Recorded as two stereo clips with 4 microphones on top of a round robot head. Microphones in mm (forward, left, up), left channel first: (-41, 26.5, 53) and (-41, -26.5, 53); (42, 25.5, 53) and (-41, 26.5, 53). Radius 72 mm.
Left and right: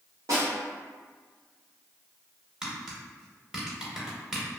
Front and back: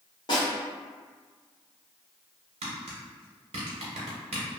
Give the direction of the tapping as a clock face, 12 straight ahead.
6 o'clock.